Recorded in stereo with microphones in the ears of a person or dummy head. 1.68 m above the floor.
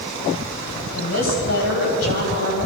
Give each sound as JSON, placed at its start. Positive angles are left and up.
{"t": 0.9, "sound": "a woman speaking", "side_deg": 75, "distance_m": 8.5}